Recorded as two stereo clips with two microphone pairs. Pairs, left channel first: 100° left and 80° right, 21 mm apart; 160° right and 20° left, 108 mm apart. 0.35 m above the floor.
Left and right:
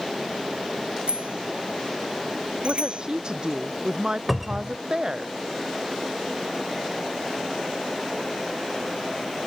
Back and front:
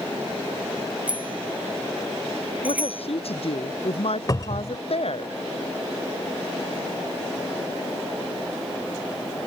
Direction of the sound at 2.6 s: 135° right.